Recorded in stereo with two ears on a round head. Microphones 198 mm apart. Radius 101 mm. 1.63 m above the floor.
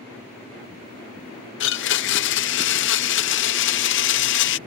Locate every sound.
1.6 s a blender: 55° left (ahead or behind)